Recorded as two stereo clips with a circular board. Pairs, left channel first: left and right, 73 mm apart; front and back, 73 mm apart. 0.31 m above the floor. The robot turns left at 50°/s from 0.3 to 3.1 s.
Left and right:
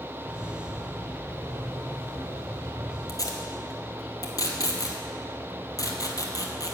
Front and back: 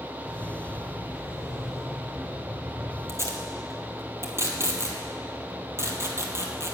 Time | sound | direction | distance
3.1 | tape being pulled | 130° left | 1.3 m